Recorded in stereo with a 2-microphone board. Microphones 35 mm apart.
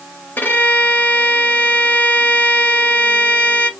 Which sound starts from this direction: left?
A violin, at 0.4 s.